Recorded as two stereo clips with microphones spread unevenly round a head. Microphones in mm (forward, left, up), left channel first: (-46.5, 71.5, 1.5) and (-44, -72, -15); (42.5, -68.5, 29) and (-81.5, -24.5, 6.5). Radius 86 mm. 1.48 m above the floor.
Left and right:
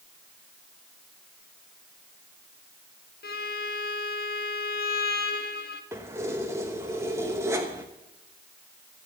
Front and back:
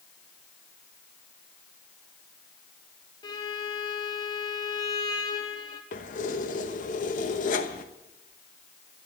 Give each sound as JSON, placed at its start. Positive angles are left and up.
{"t": 3.2, "sound": "a violin", "azimuth_deg": 50, "distance_m": 1.1}
{"t": 5.9, "sound": "keys jangling", "azimuth_deg": -10, "distance_m": 1.1}